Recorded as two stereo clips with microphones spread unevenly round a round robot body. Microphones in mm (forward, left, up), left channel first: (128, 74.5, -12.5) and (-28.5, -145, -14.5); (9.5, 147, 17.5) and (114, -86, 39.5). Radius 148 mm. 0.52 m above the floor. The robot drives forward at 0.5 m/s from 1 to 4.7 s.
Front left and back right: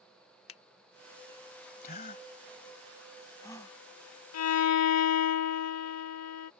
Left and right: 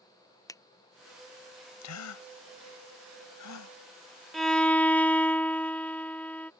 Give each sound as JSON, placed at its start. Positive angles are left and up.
{"t": 0.5, "sound": "a finger snap", "azimuth_deg": 45}
{"t": 1.8, "sound": "a gasp", "azimuth_deg": 115}
{"t": 4.3, "sound": "a violin", "azimuth_deg": 25}